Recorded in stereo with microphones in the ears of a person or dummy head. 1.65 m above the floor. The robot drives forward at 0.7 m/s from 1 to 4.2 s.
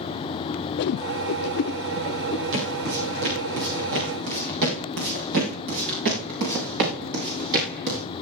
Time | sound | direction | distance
0.8 | a whoosh | 60° left (ahead or behind) | 0.5 m
2.5 | footsteps | 60° right (ahead or behind) | 6.5 m